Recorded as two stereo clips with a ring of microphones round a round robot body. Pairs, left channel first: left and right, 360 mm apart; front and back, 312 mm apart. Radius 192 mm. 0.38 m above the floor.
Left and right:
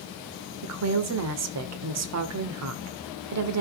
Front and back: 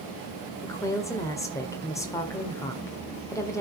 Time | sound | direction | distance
0.6 | a woman speaking | 75° right | 1.6 m